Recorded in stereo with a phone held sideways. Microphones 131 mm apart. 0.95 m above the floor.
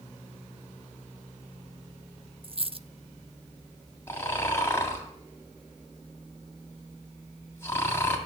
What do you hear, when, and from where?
2.4 s a dropped coin: 45° right (ahead or behind), 0.6 m
4.1 s snoring: 20° left (ahead or behind), 2.5 m